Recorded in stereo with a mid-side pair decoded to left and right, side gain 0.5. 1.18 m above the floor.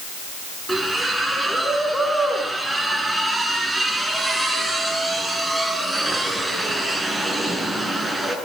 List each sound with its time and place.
0.7 s a splash: 5° right, 9.5 m